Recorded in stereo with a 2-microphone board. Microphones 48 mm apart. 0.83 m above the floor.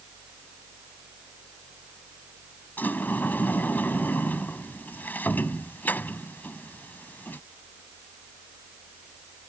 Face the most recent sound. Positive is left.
turn(degrees=40)  # may be behind; listen again after turning